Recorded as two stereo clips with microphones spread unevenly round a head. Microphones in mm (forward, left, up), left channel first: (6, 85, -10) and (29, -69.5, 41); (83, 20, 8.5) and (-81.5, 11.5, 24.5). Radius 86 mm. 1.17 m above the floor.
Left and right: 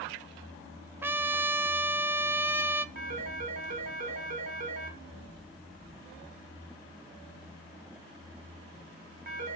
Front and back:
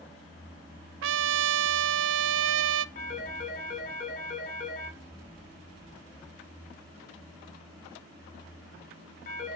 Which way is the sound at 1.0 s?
165° right.